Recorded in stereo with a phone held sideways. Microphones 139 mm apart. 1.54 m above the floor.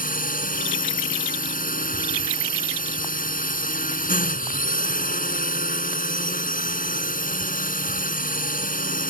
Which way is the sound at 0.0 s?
80° left.